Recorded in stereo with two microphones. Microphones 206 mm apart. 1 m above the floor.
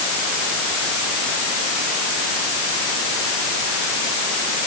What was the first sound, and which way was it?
Only background noise.